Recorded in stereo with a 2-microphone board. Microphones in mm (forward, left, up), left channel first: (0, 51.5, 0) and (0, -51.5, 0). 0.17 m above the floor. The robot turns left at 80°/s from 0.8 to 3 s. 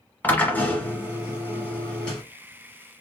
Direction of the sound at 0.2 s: 15° left (ahead or behind).